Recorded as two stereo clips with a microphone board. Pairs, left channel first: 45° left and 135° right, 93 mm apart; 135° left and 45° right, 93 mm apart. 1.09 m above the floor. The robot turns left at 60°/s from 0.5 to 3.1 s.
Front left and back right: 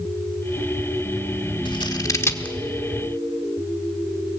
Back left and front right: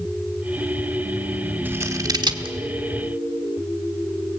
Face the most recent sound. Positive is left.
turn(degrees=-65)